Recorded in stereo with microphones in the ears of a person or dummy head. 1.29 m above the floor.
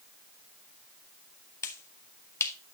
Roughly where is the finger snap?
Centre.